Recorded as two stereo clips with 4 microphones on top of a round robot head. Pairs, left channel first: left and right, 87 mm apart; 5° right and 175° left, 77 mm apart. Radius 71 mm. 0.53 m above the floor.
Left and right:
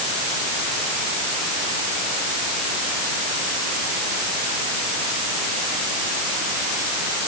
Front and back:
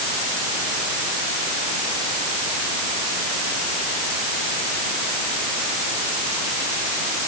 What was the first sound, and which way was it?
Only background noise.